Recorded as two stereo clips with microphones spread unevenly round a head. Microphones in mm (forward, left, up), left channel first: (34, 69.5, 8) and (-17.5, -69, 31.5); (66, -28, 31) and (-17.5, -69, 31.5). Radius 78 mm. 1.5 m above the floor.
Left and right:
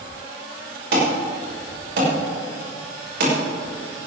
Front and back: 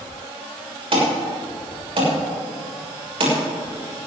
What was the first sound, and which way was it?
An alarm, 130° right.